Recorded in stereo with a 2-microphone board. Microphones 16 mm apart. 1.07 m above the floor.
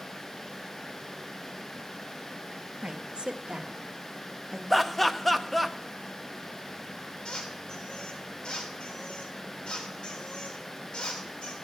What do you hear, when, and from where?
2.8 s a woman speaking: 75° right (ahead or behind), 1.5 m; by 4.6 s 30° right (ahead or behind), 1.6 m
4.7 s laughter: centre (ahead or behind), 1.0 m
7.2 s a squeak: 55° left (ahead or behind), 3 m